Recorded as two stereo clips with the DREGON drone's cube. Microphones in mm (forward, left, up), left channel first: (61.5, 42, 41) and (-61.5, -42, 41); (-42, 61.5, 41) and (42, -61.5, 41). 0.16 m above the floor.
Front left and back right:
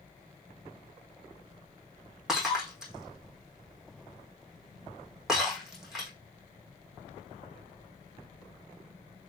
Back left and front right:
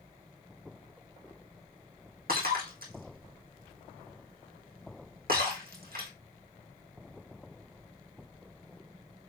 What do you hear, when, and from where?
2.3 s breaking glass: 60° right, 4.5 m